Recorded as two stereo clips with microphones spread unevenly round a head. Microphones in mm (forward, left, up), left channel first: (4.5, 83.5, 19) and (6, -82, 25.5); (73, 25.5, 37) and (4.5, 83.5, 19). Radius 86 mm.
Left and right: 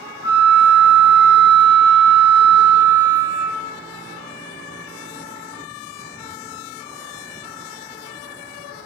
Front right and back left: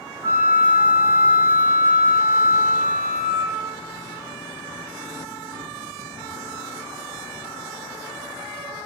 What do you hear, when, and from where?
0.2 s a flute: 80° left, 1.5 m